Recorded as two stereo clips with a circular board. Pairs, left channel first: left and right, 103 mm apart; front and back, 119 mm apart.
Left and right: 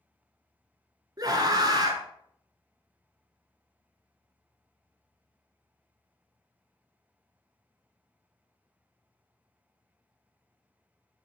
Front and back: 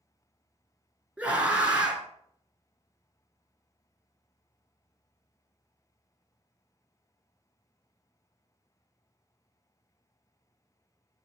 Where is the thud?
I don't hear a thud.